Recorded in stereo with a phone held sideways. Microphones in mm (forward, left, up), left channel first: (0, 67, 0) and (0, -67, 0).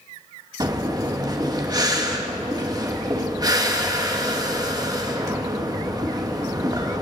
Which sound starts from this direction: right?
Breathing, at 0.6 s.